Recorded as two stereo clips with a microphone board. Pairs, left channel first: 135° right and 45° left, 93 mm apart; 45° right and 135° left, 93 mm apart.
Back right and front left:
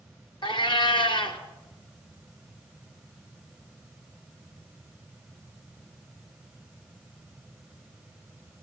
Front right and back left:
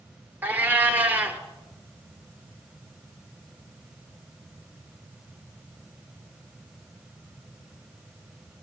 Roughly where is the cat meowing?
Behind.